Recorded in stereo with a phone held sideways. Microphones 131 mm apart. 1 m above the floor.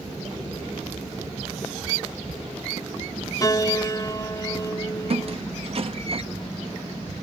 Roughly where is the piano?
Left.